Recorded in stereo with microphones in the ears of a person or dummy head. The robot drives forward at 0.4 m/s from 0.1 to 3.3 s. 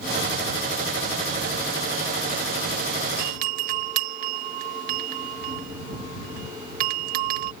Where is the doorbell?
50° right (ahead or behind).